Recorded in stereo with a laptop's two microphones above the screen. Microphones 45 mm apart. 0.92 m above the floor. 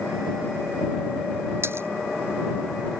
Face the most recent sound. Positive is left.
turn(degrees=-60)  # may be behind; listen again after turning